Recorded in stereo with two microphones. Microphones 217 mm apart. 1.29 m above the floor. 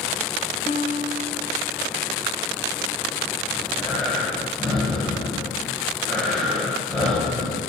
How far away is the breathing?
About 6.5 m.